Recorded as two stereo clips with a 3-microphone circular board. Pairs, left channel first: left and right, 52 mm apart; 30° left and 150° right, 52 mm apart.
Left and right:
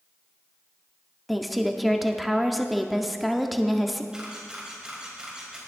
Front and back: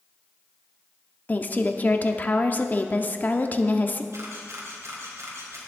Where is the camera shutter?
165° right, 3.5 m.